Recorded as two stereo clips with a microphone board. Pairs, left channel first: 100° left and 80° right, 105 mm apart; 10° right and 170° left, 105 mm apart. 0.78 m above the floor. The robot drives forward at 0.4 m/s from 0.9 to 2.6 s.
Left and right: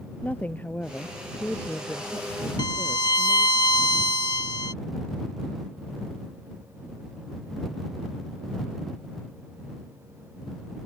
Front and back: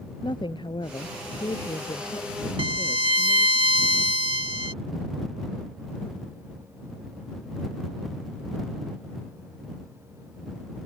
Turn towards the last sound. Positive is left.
turn(degrees=145)